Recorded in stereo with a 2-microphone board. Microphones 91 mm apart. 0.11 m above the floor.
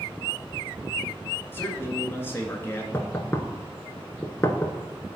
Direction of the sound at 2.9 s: 25° left (ahead or behind).